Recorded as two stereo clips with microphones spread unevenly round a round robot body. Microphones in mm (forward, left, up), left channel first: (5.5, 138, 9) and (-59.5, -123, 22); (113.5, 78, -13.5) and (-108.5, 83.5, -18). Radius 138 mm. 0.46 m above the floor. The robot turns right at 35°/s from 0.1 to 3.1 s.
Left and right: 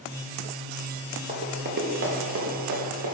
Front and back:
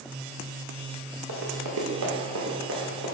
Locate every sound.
1.3 s running footsteps: 170° right, 3.5 m; by 3.1 s 120° right, 4.5 m